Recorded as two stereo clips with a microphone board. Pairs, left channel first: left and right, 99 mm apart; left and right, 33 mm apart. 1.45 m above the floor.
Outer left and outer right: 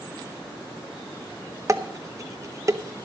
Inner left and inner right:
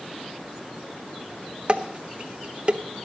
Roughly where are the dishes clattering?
Right.